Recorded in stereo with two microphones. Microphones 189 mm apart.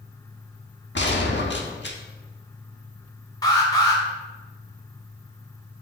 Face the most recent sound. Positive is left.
turn(degrees=20)  # may be behind; listen again after turning